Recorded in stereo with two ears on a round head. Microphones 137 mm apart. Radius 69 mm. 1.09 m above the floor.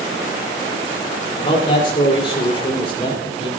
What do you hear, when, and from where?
1.4 s a man speaking: 35° left (ahead or behind), 3.5 m